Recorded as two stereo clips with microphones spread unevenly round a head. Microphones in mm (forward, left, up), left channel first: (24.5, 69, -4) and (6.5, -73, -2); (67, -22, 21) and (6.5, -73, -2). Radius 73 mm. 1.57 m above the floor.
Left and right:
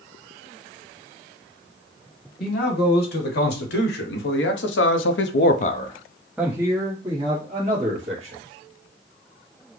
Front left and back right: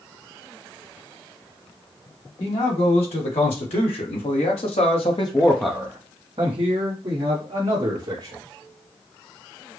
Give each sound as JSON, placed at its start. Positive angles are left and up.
{"t": 2.4, "sound": "a man speaking", "azimuth_deg": 60, "distance_m": 2.0}